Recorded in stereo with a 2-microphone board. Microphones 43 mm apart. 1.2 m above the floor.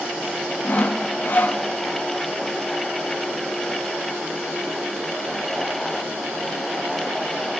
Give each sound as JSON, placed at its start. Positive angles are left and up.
{"t": 0.6, "sound": "sawing", "side_deg": 45, "distance_m": 0.8}